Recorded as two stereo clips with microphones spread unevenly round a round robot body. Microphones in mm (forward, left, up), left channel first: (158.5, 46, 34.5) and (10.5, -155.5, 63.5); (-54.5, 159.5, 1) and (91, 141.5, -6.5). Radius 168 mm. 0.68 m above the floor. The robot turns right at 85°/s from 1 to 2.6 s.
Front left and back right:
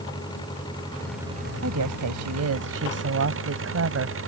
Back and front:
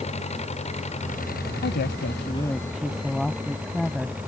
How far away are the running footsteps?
I don't hear running footsteps.